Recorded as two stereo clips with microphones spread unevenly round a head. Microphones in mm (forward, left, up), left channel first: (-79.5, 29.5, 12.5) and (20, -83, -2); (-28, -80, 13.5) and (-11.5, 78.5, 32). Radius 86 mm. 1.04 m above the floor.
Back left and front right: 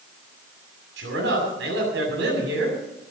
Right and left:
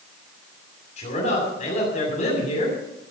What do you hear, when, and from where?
1.0 s a man speaking: 45° right, 7 m